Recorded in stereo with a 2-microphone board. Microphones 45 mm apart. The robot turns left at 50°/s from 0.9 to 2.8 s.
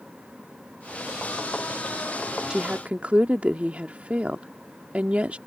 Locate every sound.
2.5 s a woman speaking: 20° right (ahead or behind); by 5.4 s 30° right (ahead or behind)